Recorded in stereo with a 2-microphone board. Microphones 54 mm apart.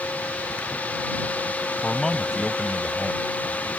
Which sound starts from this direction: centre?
A man speaking, at 1.8 s.